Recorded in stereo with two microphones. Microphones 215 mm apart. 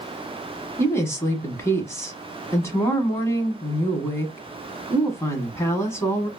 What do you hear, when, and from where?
0.8 s a woman speaking: 10° left (ahead or behind), 1.0 m